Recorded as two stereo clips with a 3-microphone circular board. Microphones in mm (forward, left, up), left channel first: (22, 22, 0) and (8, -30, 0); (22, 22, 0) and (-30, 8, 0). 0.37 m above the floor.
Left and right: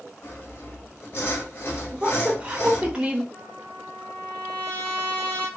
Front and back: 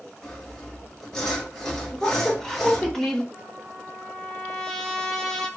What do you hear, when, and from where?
0.2 s sawing: 90° left, 1.8 m
1.9 s a woman speaking: 55° right, 0.8 m
3.3 s a trumpet: 85° left, 1.4 m